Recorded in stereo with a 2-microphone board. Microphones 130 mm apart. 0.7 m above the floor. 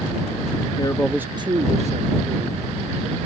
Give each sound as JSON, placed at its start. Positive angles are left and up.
{"t": 0.8, "sound": "a man speaking", "side_deg": 40}